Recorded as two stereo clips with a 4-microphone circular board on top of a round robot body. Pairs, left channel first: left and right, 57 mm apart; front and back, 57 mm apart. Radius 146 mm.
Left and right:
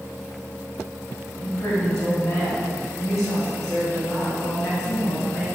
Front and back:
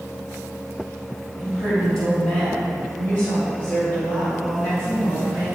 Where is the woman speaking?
70° left, 2.5 m; by 5.5 s 35° left, 5 m.